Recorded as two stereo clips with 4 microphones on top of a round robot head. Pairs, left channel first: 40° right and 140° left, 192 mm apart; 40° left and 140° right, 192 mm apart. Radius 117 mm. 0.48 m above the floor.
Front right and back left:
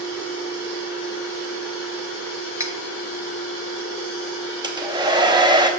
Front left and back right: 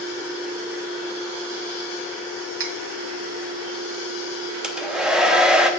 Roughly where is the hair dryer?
Behind left.